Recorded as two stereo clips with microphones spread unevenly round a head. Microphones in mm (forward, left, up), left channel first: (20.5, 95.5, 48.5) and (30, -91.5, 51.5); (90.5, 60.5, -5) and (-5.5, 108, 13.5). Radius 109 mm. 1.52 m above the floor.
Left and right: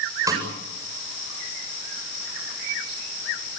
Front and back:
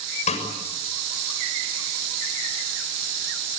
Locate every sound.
0.3 s a snare drum: 15° right, 8 m